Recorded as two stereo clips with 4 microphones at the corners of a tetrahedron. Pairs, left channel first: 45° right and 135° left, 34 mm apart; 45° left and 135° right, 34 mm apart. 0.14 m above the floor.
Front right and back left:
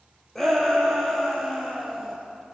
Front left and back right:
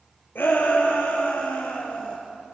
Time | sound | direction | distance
0.3 | a shout | 35° left | 4 m